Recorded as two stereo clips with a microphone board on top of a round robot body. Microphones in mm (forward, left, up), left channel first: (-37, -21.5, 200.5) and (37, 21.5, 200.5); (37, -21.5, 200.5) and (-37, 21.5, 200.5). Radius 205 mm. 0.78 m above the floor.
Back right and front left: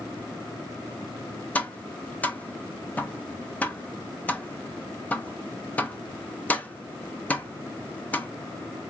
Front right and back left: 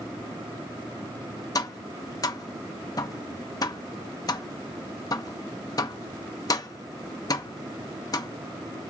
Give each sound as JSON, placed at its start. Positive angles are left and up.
{"t": 1.6, "sound": "tapping", "azimuth_deg": -75, "distance_m": 0.6}